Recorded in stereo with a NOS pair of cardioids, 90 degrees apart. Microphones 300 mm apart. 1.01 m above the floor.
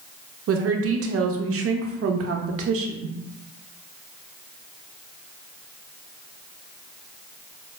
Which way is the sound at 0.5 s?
45° right.